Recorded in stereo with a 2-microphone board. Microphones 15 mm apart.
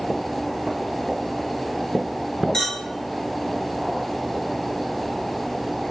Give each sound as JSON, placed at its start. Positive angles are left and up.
{"t": 2.5, "sound": "a clink", "side_deg": 40, "distance_m": 1.4}